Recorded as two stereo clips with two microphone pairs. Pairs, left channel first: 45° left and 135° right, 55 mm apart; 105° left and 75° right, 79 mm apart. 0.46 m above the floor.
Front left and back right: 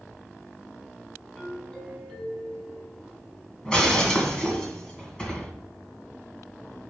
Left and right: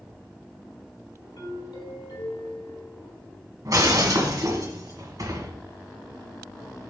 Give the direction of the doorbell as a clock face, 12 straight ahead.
8 o'clock.